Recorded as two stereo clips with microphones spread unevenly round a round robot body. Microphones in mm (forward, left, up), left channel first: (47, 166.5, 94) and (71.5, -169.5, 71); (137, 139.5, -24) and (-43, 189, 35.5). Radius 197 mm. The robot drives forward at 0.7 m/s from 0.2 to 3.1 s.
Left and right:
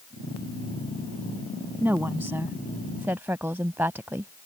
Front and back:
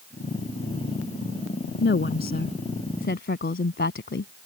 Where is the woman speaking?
Straight ahead; by 4.3 s 5° right.